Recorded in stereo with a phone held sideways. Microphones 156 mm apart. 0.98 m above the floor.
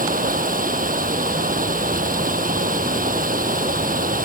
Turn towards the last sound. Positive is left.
turn(degrees=-70)  # may be behind; listen again after turning